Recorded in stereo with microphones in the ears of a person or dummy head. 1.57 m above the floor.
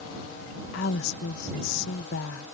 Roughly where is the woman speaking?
Left.